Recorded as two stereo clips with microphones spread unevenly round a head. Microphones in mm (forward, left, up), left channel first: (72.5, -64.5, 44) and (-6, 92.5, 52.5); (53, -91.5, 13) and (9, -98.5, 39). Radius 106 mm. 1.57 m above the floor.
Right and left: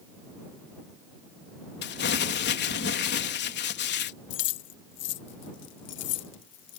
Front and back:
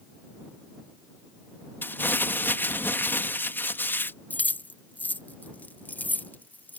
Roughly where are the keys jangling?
Ahead right.